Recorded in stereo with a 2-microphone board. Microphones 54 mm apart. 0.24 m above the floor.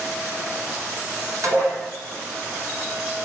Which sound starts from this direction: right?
Dishes clattering, at 1.4 s.